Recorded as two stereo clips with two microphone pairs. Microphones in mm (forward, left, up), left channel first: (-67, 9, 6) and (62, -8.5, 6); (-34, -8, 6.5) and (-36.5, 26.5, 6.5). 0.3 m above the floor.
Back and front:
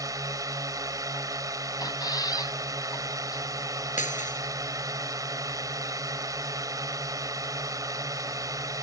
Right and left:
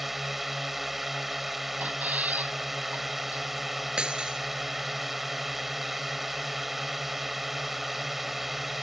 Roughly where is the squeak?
Behind left.